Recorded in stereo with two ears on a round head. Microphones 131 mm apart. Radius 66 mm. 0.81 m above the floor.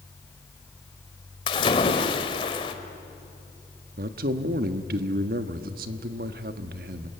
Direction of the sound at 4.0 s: 65° right (ahead or behind).